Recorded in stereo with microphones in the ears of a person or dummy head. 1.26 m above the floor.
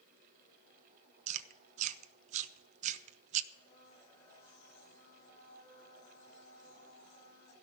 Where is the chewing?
40° right (ahead or behind), 0.7 m.